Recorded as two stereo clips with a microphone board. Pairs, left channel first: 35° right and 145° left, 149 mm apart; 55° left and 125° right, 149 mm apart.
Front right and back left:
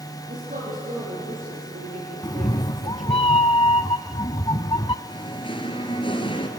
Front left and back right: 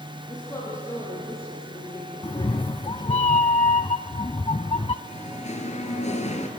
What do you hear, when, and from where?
0.3 s a woman speaking: 125° left, 8 m; by 3.2 s 115° left, 4 m
2.2 s a cat meowing: 15° left, 0.7 m
5.0 s singing: 20° left, 2.5 m